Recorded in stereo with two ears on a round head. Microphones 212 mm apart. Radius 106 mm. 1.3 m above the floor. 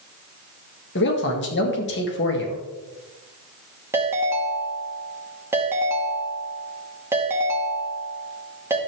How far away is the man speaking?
About 2 m.